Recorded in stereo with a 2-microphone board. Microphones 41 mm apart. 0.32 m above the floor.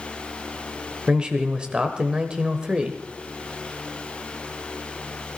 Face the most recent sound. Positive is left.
turn(degrees=-25)  # may be behind; listen again after turning